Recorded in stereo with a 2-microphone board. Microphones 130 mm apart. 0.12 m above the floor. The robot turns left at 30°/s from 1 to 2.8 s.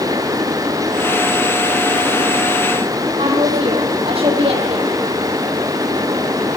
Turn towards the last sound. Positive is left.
turn(degrees=-50)  # may be behind; listen again after turning